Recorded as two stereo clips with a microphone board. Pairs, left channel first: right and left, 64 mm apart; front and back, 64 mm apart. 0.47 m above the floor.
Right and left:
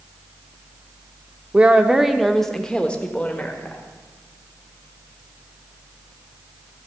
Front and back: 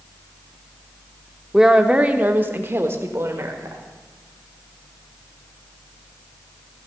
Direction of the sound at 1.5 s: 105° left.